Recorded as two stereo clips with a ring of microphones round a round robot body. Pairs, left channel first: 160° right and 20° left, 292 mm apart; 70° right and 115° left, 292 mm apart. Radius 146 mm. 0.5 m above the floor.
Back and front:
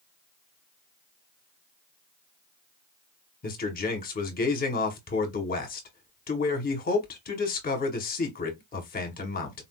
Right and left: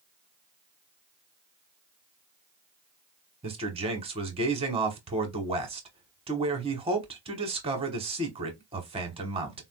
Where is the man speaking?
170° left, 1.0 m.